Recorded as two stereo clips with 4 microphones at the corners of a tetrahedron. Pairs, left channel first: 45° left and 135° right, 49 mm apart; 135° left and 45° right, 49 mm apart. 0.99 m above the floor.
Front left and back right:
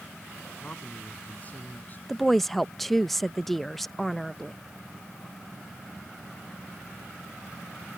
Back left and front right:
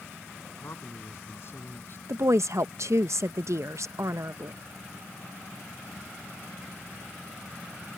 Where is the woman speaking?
45° right.